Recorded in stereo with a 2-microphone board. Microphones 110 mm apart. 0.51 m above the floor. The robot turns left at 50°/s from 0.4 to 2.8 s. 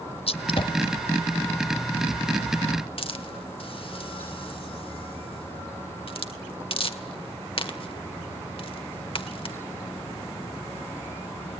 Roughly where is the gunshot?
Left.